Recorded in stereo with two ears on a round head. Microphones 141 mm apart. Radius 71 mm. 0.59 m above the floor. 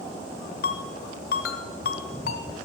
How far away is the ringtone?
About 1.3 m.